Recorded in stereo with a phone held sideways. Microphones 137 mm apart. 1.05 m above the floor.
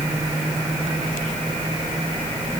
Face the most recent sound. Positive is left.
No sound to turn to.